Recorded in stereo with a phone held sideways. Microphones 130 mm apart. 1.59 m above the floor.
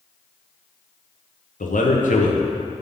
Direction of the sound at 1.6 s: 80° left.